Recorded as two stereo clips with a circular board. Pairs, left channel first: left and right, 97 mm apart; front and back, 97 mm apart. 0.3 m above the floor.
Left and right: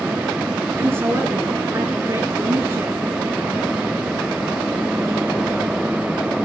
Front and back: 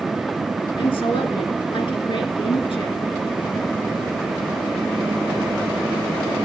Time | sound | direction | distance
0.8 | a woman speaking | 25° right | 3.5 m